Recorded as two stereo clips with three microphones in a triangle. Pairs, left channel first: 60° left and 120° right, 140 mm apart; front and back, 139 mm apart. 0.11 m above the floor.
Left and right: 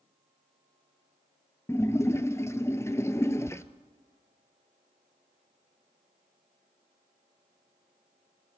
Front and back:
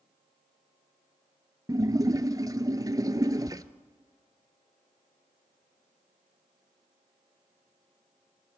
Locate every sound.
1.7 s a splash: 125° left, 0.9 m